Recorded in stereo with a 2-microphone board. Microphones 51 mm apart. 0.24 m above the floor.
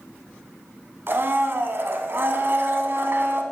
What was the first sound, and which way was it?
A blender, 50° right (ahead or behind).